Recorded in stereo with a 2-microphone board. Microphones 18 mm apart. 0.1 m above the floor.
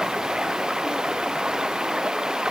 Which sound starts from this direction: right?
Running water, at 0.0 s.